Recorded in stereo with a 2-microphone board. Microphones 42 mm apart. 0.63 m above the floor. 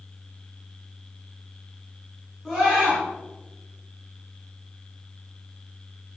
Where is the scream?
5° left (ahead or behind), 8 m.